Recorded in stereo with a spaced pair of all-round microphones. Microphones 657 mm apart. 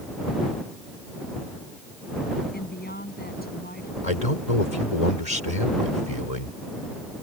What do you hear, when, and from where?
2.5 s a woman speaking: 15° left (ahead or behind)
4.0 s a man speaking: 75° left (ahead or behind)